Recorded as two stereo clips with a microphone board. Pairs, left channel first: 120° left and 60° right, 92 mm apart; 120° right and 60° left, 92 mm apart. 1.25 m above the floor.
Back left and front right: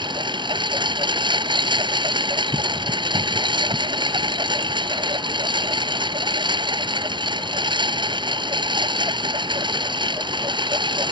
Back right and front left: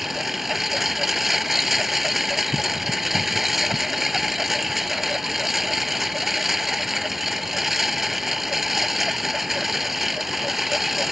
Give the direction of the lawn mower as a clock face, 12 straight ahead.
1 o'clock.